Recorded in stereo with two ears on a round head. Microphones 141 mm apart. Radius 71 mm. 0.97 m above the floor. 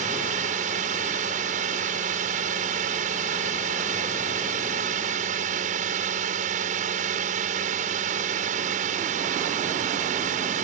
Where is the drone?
50° right (ahead or behind).